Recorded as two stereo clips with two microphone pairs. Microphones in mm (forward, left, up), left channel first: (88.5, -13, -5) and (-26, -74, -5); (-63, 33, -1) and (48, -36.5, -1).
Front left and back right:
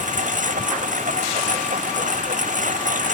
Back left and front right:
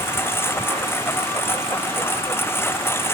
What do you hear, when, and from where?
0.0 s a lawn mower: 140° right